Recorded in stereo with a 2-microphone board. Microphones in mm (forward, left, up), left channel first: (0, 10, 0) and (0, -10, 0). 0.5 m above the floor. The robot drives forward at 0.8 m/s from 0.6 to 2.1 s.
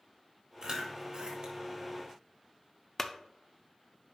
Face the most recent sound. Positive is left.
turn(degrees=20)  # may be behind; listen again after turning